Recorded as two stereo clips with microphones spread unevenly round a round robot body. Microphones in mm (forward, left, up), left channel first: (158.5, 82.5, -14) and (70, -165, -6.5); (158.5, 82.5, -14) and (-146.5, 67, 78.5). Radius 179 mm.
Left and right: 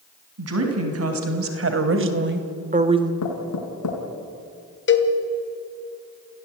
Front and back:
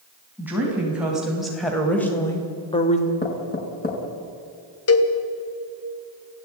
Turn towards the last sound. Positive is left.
turn(degrees=30)